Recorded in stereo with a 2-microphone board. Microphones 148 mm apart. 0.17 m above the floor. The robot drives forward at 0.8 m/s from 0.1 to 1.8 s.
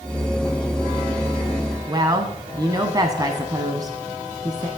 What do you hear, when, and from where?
1.9 s a woman speaking: 30° right (ahead or behind), 1.1 m